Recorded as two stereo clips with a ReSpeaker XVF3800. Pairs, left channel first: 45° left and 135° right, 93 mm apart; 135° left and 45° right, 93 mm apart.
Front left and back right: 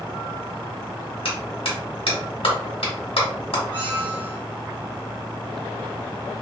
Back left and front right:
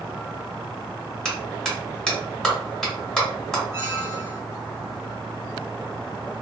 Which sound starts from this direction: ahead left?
A clap, at 1.2 s.